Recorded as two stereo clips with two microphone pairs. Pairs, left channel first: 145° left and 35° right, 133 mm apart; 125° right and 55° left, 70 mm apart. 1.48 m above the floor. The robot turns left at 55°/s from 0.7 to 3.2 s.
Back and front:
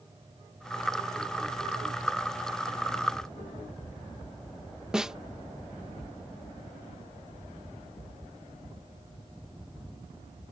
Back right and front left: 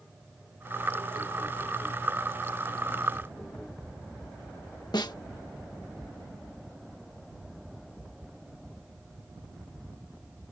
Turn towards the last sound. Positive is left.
turn(degrees=-115)